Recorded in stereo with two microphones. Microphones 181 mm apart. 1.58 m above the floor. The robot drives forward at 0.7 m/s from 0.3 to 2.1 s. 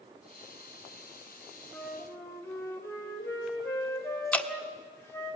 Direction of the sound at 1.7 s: 15° left (ahead or behind).